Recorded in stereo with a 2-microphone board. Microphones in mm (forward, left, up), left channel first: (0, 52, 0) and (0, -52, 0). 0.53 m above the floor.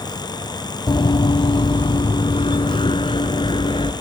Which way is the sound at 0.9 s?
50° left (ahead or behind).